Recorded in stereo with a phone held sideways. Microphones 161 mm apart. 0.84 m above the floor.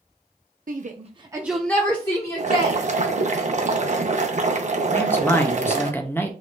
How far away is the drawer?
I don't hear a drawer.